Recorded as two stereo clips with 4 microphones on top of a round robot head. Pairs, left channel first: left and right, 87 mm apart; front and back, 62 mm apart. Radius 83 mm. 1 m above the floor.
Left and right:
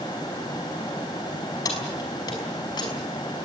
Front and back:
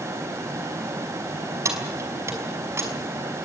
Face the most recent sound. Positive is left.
turn(degrees=140)